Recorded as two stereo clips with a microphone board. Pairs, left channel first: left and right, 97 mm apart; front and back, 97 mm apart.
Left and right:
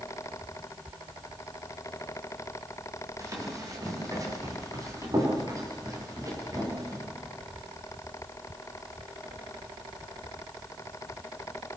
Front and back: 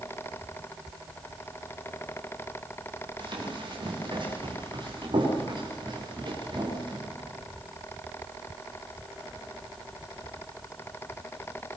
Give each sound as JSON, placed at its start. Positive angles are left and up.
{"t": 3.2, "sound": "running footsteps", "azimuth_deg": -145, "distance_m": 9.5}